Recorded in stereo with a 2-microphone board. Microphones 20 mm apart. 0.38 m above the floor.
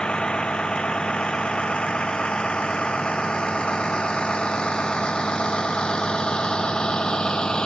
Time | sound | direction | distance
0.0 | a vehicle | 65° left (ahead or behind) | ?